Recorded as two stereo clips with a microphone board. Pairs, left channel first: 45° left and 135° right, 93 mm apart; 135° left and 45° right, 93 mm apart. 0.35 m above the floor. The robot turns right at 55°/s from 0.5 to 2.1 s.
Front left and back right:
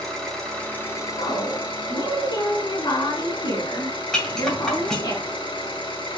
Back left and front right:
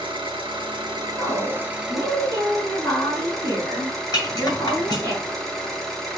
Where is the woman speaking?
30° left, 2.5 m; by 5.1 s 85° left, 2.5 m.